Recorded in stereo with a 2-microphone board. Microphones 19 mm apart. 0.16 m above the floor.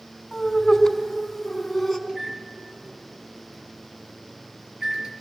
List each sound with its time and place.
0.3 s laughter: 20° left (ahead or behind), 1.7 m; by 2.0 s 5° right (ahead or behind), 1.8 m
2.1 s a microwave: 35° right (ahead or behind), 3 m